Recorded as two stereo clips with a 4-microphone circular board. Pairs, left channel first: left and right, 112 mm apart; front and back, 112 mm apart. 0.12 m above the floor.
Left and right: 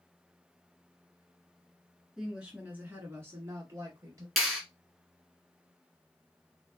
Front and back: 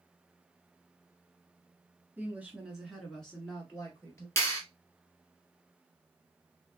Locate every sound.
2.2 s a woman speaking: 165° right, 1.5 m; by 4.3 s 55° right, 2 m
4.4 s a clap: straight ahead, 1.4 m